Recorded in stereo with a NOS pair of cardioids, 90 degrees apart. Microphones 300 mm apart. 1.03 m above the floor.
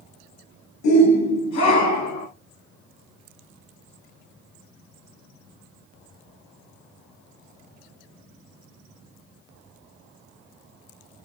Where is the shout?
70° left, 6 m; by 2.3 s 75° left, 8 m.